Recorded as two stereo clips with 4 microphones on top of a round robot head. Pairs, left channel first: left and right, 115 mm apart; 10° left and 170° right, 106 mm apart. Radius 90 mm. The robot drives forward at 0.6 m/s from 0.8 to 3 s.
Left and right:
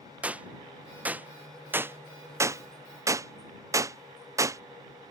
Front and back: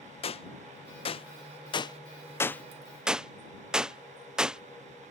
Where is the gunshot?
15° right; by 4.6 s 100° right.